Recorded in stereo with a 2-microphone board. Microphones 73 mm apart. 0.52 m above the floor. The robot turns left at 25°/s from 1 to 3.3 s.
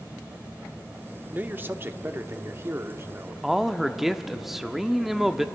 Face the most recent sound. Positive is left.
turn(degrees=-5)  # may be behind; listen again after turning